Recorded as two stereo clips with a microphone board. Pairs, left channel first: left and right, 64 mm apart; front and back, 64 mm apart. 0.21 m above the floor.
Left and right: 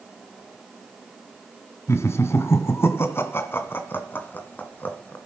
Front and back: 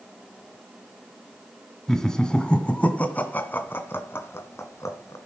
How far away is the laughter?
About 2.0 m.